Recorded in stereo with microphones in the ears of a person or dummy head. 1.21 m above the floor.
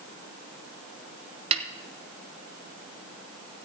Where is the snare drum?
40° right (ahead or behind), 0.9 m.